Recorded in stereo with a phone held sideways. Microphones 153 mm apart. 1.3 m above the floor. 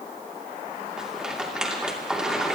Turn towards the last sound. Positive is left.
turn(degrees=-5)  # may be behind; listen again after turning